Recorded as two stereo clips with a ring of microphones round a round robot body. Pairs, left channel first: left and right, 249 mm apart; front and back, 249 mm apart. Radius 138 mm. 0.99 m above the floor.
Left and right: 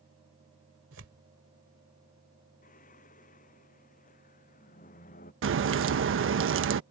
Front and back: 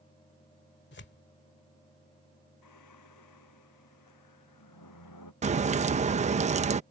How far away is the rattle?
No rattle in this recording.